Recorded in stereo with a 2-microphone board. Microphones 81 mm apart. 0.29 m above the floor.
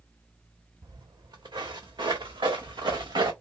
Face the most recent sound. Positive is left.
turn(degrees=-60)  # may be behind; listen again after turning